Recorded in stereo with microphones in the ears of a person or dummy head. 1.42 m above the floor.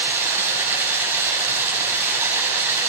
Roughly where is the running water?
Centre.